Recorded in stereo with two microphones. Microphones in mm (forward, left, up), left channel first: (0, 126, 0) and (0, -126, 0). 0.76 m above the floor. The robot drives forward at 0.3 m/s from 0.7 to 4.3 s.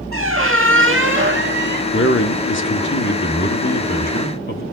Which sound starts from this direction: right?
A squeak, at 0.1 s.